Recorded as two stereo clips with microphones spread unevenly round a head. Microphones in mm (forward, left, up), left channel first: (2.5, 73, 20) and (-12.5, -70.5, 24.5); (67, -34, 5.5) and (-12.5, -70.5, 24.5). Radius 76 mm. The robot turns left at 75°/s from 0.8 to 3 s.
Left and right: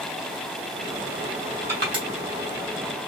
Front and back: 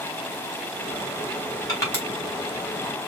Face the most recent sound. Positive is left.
turn(degrees=-125)